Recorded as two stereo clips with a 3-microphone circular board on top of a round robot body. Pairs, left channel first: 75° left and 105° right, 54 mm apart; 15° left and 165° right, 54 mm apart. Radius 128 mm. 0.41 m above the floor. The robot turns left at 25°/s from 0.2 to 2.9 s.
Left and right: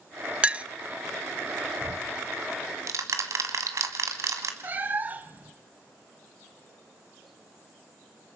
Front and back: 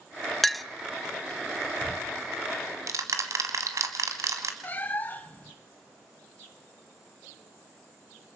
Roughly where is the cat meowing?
Ahead right.